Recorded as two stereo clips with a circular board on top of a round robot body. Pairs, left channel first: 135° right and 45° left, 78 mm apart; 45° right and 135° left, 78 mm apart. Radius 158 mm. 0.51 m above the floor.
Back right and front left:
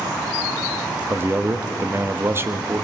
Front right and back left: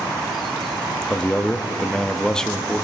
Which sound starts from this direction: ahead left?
A man speaking, at 1.1 s.